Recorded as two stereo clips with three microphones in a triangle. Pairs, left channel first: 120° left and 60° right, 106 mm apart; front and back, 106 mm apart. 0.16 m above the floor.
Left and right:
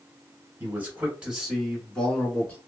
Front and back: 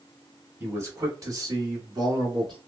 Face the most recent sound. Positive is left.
turn(degrees=-175)